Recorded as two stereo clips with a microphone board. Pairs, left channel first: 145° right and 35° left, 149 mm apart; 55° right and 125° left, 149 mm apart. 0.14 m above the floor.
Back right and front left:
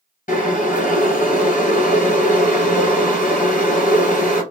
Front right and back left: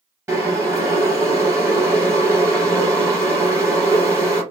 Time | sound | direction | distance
0.3 | boiling | 165° right | 1.9 m